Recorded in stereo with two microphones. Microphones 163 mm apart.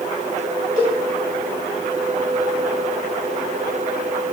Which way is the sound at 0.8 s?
55° left (ahead or behind).